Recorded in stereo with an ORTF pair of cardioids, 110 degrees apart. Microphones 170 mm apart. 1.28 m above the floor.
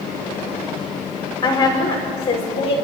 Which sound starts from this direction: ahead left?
A woman speaking, at 1.4 s.